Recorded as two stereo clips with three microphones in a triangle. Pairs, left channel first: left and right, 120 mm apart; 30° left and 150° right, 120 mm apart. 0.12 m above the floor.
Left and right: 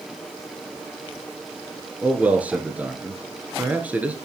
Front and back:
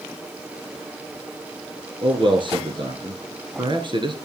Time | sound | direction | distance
2.0 | a man speaking | 165° right | 1.6 m